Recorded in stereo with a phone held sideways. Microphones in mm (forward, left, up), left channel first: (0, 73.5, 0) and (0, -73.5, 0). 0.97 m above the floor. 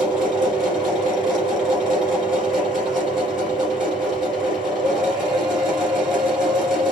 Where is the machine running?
Centre (ahead or behind), 3 m.